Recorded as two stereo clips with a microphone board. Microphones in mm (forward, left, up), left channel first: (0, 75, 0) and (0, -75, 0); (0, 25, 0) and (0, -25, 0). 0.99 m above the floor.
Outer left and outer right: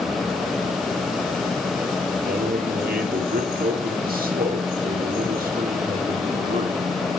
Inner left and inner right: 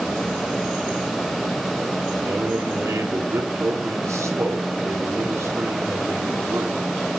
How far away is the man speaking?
About 2.5 m.